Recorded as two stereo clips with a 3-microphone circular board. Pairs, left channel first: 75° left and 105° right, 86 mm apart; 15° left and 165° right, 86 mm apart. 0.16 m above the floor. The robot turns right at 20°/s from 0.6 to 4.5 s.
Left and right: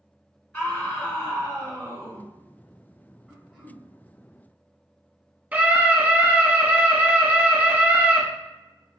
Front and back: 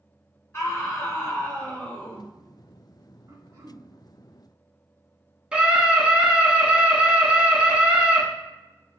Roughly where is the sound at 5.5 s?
Right.